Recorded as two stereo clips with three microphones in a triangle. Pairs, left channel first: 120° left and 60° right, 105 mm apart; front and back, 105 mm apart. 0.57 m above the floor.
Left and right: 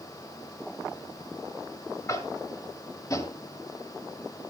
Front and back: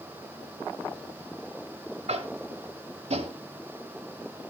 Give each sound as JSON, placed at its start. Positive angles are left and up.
{"t": 2.1, "sound": "tapping", "azimuth_deg": 175, "distance_m": 1.1}